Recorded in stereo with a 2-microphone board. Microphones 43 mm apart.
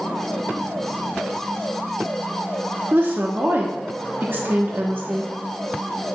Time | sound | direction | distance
2.9 | a woman speaking | 50° right (ahead or behind) | 0.9 m